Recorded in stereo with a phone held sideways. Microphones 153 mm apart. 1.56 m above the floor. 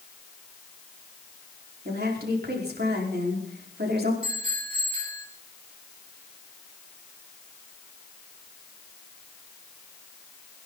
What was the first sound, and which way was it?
A woman speaking, 80° right.